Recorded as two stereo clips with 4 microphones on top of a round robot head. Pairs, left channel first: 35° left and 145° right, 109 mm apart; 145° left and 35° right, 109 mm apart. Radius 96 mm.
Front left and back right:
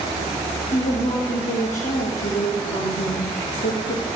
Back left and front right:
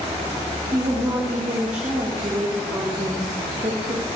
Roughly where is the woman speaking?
Ahead left.